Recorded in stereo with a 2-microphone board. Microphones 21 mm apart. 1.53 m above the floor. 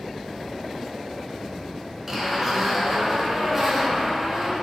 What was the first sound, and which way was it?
A zipper, 15° right (ahead or behind).